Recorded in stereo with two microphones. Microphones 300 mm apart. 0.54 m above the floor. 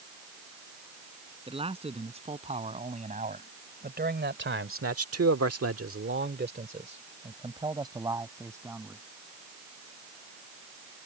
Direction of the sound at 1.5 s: 20° right (ahead or behind).